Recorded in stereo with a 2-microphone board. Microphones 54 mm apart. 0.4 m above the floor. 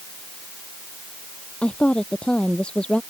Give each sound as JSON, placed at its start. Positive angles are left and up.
{"t": 1.6, "sound": "a woman speaking", "side_deg": 20}